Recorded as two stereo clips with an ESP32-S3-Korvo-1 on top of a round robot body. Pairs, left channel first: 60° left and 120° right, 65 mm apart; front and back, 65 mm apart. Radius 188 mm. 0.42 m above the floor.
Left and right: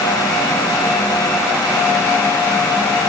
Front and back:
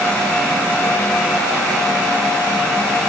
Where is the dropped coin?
No dropped coin in this recording.